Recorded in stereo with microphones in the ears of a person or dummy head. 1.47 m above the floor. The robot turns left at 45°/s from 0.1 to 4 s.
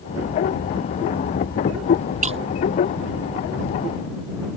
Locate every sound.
2.2 s breaking glass: 40° right (ahead or behind); by 2.4 s 30° right (ahead or behind)